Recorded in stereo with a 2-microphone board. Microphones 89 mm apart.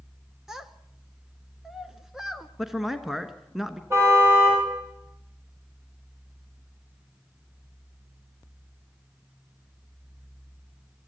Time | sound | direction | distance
0.5 | a child speaking | 5° right (ahead or behind) | 0.6 m
2.6 | a man speaking | centre (ahead or behind) | 1.1 m
3.9 | a car horn | 25° right (ahead or behind) | 7.5 m